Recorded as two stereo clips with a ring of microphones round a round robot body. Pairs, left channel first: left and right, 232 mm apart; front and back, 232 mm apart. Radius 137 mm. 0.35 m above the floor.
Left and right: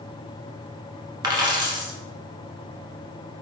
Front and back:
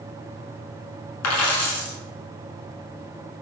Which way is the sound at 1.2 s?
15° right.